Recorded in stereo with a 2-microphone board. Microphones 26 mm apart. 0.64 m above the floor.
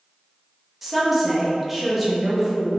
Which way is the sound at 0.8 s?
5° right (ahead or behind).